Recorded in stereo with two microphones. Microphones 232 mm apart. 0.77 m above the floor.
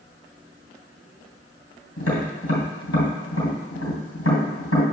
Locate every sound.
2.0 s tapping: 85° left, 2.5 m